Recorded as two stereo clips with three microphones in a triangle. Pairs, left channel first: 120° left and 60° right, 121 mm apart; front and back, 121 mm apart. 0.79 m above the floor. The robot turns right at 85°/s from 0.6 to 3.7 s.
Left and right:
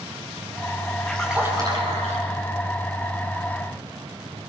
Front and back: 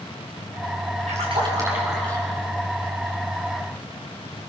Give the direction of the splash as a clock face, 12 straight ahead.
5 o'clock.